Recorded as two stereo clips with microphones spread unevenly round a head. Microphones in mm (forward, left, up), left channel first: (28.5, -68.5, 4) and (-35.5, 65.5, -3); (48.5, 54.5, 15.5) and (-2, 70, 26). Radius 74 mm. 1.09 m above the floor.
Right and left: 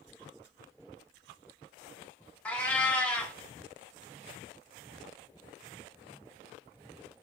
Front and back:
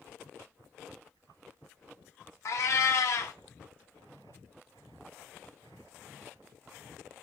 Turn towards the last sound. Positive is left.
turn(degrees=15)